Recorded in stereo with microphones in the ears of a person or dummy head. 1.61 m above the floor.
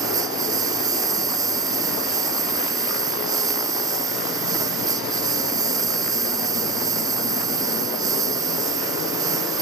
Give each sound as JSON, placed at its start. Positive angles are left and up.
{"t": 0.0, "sound": "a lawn mower", "side_deg": -20}